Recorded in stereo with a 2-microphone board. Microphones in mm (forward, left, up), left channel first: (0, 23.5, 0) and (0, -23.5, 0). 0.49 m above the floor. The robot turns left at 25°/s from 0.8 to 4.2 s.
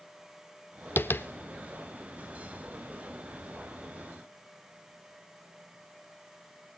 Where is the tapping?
55° left (ahead or behind), 0.6 m.